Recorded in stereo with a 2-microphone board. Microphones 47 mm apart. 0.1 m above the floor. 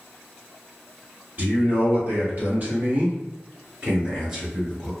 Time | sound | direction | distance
1.4 | a man speaking | 40° right (ahead or behind) | 2.0 m